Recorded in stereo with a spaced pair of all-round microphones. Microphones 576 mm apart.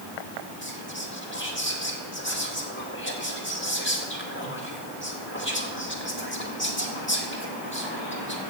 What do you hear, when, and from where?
0.6 s whispering: 20° left (ahead or behind), 2 m